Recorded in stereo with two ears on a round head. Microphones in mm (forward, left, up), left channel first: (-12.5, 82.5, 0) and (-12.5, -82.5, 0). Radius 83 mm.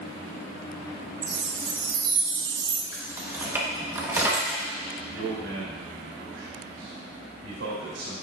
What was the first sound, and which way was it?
A chime, 25° right (ahead or behind).